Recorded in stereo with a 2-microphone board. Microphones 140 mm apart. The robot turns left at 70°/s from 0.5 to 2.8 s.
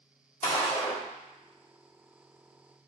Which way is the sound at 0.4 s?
75° left.